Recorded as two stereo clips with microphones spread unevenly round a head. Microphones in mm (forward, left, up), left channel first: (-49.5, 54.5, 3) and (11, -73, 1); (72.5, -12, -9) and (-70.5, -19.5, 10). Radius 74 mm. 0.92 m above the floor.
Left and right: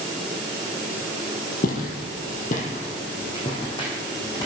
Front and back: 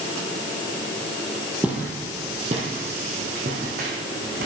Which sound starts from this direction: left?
Footsteps, at 1.6 s.